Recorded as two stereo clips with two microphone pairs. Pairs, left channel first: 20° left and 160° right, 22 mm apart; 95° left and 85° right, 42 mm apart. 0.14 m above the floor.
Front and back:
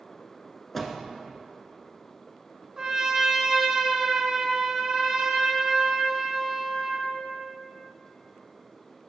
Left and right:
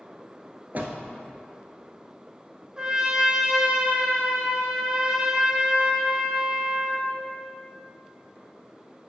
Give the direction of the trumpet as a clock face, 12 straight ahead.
4 o'clock.